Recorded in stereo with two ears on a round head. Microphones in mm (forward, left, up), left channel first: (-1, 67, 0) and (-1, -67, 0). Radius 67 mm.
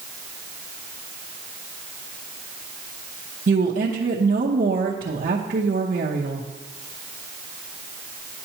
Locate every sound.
3.5 s a woman speaking: 60° right (ahead or behind), 0.8 m